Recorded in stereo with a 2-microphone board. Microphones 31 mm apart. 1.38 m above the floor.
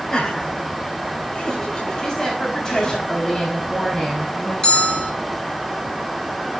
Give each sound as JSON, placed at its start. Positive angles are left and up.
{"t": 0.1, "sound": "laughter", "side_deg": 20, "distance_m": 8.5}
{"t": 2.0, "sound": "a woman speaking", "side_deg": 25, "distance_m": 4.0}
{"t": 4.6, "sound": "a bell", "side_deg": 30, "distance_m": 2.5}